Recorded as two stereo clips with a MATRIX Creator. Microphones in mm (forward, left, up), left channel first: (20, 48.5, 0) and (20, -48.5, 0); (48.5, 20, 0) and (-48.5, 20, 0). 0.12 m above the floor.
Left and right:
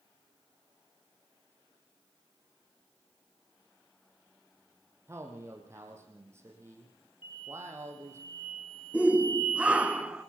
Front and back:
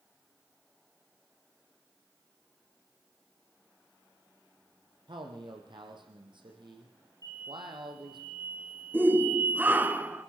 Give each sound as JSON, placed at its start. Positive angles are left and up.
{"t": 5.1, "sound": "a man speaking", "azimuth_deg": -150, "distance_m": 4.5}
{"t": 7.2, "sound": "an explosion", "azimuth_deg": 125, "distance_m": 9.5}
{"t": 8.9, "sound": "a shout", "azimuth_deg": -145, "distance_m": 1.1}